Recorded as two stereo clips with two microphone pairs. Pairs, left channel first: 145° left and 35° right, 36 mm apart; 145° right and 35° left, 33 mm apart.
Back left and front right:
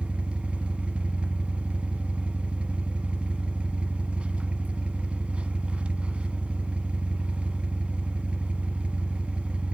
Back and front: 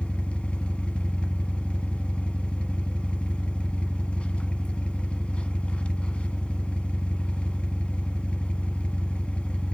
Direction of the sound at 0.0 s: 95° right.